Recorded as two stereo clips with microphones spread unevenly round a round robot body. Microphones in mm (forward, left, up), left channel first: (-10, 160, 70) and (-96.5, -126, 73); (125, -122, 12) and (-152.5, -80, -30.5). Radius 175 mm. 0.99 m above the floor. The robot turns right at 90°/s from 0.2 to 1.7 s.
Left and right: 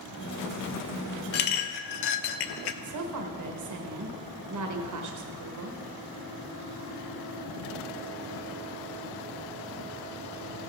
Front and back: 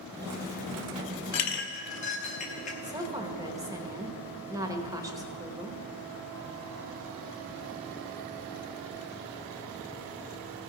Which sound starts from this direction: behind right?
A woman speaking, at 2.8 s.